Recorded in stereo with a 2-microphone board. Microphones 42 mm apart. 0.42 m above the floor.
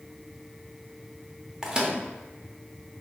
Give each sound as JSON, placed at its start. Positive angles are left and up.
{"t": 1.6, "sound": "a microwave", "side_deg": -15, "distance_m": 0.8}